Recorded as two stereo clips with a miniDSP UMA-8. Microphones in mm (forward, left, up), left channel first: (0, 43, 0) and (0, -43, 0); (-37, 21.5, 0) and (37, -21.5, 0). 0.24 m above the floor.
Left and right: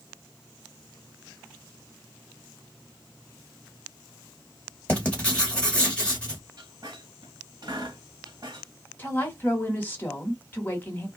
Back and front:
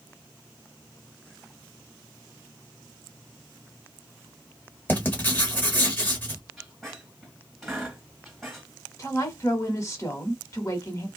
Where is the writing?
135° left, 1.4 m.